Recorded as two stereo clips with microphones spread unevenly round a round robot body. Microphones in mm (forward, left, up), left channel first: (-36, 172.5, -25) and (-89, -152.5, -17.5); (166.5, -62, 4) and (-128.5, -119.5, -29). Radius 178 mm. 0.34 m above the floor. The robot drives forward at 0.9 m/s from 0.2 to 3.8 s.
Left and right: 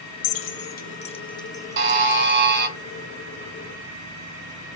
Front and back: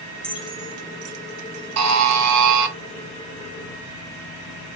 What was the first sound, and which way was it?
Keys jangling, 100° left.